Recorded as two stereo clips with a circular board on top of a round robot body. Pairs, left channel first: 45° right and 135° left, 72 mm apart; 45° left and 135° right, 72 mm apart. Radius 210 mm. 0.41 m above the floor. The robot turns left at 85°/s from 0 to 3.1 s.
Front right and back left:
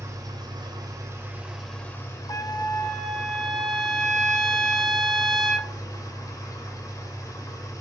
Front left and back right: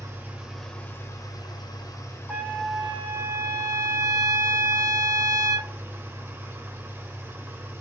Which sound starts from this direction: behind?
An engine running, at 0.0 s.